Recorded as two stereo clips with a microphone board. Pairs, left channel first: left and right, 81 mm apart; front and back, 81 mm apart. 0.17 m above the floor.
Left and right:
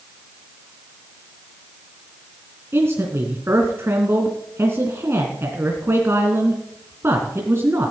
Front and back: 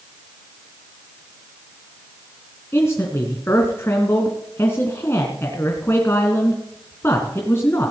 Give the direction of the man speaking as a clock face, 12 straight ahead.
2 o'clock.